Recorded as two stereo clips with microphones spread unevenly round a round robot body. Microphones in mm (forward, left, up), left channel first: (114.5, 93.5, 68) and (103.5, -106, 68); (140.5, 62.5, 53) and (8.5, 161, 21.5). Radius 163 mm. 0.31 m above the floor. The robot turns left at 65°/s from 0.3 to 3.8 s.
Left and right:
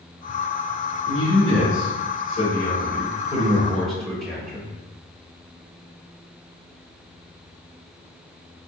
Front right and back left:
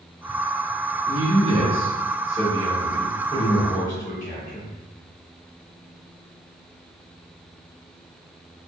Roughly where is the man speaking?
Behind.